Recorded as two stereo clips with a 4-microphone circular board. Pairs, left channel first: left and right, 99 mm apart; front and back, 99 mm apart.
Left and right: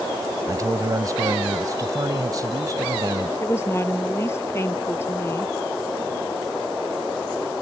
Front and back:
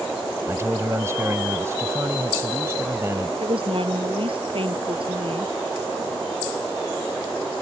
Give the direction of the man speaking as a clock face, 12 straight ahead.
4 o'clock.